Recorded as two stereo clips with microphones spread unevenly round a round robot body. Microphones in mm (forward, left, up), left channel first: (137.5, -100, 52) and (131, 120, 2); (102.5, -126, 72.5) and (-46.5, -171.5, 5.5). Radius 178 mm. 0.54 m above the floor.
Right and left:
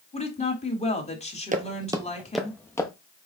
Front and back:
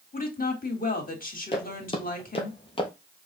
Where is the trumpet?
No trumpet in this recording.